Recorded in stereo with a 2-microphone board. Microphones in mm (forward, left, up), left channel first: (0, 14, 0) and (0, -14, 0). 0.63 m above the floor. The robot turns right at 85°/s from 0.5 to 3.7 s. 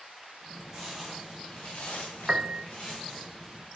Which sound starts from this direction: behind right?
A piano, at 2.3 s.